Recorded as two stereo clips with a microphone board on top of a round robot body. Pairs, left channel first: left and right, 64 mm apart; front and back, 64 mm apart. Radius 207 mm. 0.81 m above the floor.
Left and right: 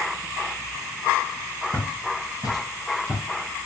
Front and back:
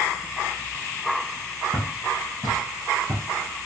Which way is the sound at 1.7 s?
15° right.